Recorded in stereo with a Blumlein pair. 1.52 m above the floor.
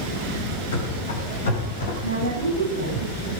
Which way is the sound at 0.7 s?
60° left.